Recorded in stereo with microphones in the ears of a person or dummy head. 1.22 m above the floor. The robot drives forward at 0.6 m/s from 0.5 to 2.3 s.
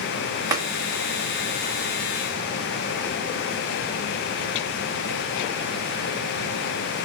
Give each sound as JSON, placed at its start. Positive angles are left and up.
{"t": 0.5, "sound": "tapping", "side_deg": -15, "distance_m": 1.0}